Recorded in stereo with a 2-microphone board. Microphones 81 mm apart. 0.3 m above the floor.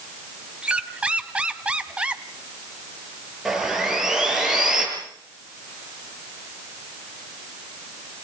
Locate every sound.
0.6 s a squeak: 15° right (ahead or behind), 1.2 m
3.5 s sawing: 5° right (ahead or behind), 7 m